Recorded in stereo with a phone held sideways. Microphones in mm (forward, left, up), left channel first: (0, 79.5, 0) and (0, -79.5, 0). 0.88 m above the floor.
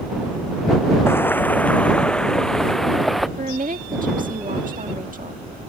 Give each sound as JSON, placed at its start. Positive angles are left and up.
{"t": 1.1, "sound": "footsteps", "side_deg": 15}
{"t": 3.4, "sound": "a woman speaking", "side_deg": -60}